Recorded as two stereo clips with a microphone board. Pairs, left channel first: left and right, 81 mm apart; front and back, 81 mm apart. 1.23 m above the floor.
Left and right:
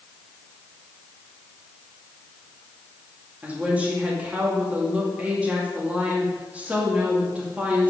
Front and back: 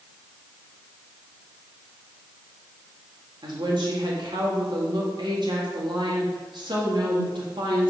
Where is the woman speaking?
165° right, 2 m.